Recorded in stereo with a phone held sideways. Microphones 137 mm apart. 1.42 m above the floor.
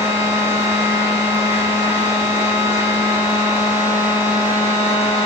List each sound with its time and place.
0.0 s a machine running: 45° right (ahead or behind), 3 m